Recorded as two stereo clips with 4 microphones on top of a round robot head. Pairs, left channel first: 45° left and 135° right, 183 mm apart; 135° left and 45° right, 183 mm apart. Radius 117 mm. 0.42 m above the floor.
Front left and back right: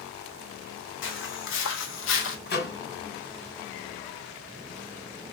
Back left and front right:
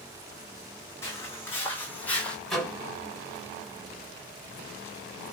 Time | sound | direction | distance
1.0 | footsteps | 60° left | 1.6 m
2.5 | a microwave | 50° left | 2 m